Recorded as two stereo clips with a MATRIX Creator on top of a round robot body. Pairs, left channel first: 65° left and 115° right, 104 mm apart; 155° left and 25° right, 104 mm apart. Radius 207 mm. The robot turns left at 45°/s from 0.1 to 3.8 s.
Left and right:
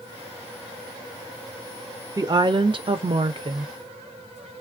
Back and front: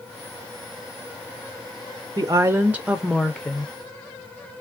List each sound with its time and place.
2.2 s a woman speaking: 70° right, 0.6 m; by 3.7 s 140° right, 0.6 m